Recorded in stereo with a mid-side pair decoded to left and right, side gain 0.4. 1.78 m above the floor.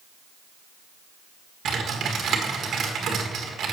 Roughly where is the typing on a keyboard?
Ahead right.